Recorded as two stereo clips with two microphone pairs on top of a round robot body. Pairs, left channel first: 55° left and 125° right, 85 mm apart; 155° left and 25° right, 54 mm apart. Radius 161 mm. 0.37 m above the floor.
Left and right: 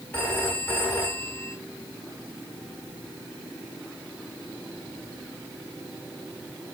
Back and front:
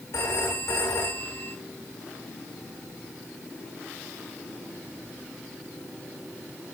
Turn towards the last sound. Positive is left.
turn(degrees=125)